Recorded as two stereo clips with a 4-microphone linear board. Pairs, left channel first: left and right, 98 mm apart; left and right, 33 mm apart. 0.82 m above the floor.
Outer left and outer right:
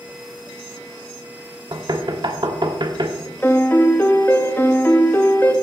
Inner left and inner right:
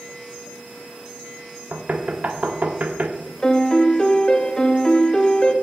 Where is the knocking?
50° right (ahead or behind), 1.1 m.